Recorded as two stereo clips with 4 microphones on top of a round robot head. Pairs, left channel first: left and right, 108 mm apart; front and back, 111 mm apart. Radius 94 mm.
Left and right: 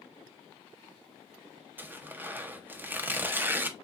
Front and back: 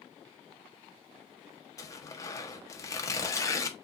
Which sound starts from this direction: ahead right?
Tearing paper, at 1.8 s.